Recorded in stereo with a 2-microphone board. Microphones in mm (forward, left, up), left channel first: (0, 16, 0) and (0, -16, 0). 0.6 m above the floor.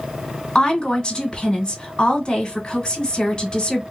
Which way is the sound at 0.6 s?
30° left (ahead or behind).